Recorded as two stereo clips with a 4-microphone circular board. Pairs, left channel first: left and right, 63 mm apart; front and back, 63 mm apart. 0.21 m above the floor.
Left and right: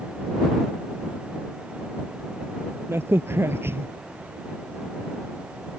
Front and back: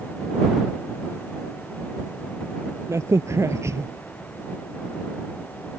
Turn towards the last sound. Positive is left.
turn(degrees=-140)